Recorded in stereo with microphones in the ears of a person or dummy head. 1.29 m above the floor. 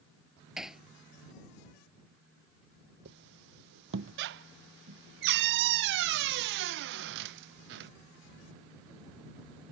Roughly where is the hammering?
Centre.